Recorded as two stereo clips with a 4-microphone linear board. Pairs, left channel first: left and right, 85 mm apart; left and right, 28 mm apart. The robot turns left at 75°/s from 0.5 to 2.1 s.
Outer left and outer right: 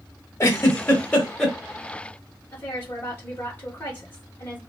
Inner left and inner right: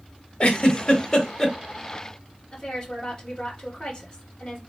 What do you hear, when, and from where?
0.4 s a giggle: 35° left (ahead or behind), 1.0 m; by 1.6 s centre (ahead or behind), 1.0 m
2.5 s a woman speaking: 25° left (ahead or behind), 1.2 m